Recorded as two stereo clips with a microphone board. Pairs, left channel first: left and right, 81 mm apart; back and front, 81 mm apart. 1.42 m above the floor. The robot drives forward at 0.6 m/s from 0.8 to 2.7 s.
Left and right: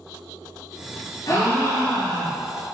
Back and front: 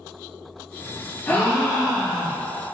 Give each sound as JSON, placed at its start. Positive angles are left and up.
{"t": 1.3, "sound": "a gasp", "azimuth_deg": 115, "distance_m": 0.8}